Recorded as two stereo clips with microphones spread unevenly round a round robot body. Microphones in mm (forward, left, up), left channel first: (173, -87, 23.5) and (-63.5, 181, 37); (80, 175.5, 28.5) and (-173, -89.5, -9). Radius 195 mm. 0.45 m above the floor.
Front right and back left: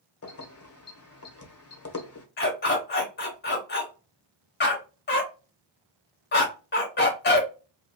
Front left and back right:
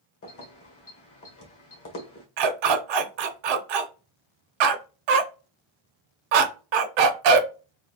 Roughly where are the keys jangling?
Ahead.